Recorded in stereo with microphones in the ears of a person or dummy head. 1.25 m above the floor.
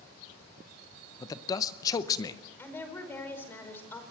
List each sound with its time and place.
1.2 s a man speaking: 20° left (ahead or behind), 0.7 m
2.6 s a woman speaking: 15° left (ahead or behind), 5 m